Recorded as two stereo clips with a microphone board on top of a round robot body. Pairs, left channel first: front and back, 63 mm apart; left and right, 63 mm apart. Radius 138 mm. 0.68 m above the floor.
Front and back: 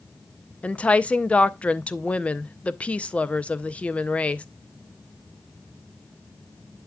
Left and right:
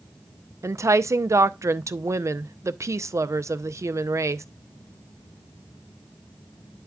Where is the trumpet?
I don't hear a trumpet.